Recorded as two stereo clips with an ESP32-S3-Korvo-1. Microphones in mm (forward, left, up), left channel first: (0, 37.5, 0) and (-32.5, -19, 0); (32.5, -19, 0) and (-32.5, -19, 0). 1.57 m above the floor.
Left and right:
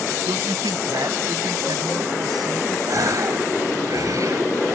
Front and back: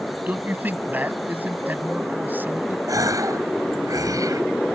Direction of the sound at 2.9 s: 155° right.